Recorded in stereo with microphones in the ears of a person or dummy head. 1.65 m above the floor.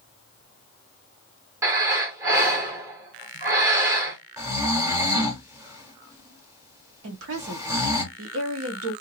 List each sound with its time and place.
1.6 s breathing: 15° right (ahead or behind), 0.9 m
4.4 s snoring: 20° right (ahead or behind), 1.0 m
7.0 s a woman speaking: 85° right, 1.2 m